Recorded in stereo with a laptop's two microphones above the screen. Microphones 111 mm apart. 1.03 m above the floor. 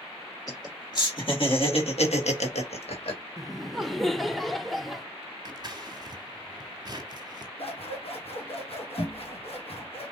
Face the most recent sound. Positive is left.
turn(degrees=60)  # may be behind; listen again after turning